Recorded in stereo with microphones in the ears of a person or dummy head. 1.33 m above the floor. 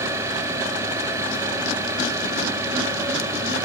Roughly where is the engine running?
Centre.